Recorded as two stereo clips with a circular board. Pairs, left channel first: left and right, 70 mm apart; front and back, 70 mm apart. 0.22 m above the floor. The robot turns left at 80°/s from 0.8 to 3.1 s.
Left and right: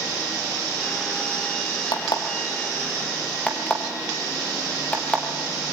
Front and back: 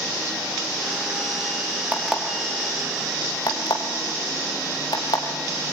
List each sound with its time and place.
1.9 s an alarm clock: 110° left, 2.5 m; by 5.2 s 15° left, 2.5 m